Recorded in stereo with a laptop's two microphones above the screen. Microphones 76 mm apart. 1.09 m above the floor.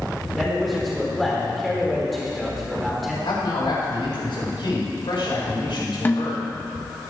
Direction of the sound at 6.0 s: 25° left (ahead or behind).